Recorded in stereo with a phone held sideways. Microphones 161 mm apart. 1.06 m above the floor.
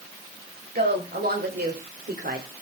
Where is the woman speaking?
85° right, 6 m; by 2.5 s 75° right (ahead or behind), 3.5 m.